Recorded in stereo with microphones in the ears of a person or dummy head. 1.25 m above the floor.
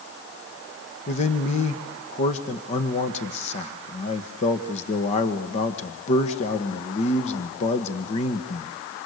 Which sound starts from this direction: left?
A man speaking, at 1.1 s.